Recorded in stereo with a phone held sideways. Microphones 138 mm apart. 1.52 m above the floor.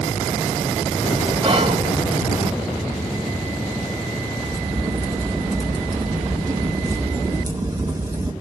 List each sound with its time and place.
1.4 s whispering: 40° right (ahead or behind), 1.5 m
4.4 s a crack: 30° right (ahead or behind), 1.8 m